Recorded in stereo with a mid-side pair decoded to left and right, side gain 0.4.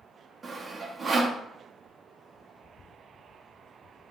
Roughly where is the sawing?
Ahead right.